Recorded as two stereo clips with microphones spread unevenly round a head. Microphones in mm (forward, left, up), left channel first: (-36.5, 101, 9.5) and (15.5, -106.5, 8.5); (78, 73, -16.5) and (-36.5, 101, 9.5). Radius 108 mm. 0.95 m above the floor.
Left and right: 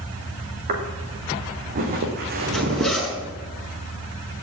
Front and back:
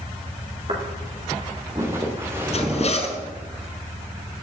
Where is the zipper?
15° left, 6.5 m.